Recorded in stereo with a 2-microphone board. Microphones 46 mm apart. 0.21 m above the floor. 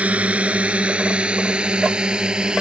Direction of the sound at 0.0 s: 30° right (ahead or behind).